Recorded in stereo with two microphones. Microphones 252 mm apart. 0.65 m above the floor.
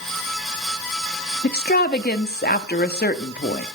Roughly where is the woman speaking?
Left.